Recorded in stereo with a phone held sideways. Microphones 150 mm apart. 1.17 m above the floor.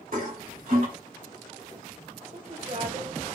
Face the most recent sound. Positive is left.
turn(degrees=-65)  # may be behind; listen again after turning